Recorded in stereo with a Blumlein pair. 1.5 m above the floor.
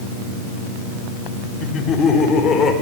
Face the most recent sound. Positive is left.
turn(degrees=20)